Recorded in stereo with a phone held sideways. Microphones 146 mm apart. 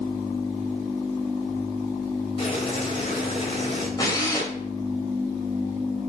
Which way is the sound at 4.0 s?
25° left (ahead or behind).